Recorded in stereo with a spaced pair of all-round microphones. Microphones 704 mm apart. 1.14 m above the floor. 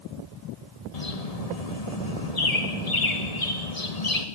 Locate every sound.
0.9 s a bird: 60° left (ahead or behind), 1.9 m